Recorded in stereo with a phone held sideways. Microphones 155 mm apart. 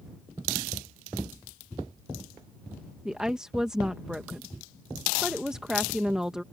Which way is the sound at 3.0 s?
5° right (ahead or behind).